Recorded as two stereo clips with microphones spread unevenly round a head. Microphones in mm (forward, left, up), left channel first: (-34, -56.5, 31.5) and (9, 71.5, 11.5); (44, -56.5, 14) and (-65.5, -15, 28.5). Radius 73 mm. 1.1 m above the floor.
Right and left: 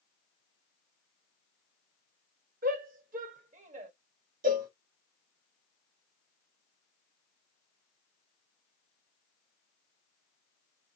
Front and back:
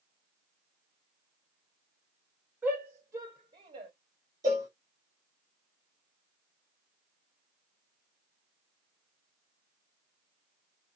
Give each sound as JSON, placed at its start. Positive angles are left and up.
{"t": 2.6, "sound": "a shout", "azimuth_deg": 80, "distance_m": 1.8}
{"t": 4.4, "sound": "a cowbell", "azimuth_deg": 90, "distance_m": 2.0}